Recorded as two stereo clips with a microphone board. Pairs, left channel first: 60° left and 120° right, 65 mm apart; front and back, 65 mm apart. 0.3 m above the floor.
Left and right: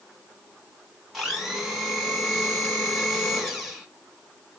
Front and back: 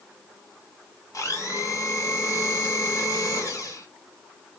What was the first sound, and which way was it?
A blender, 35° right.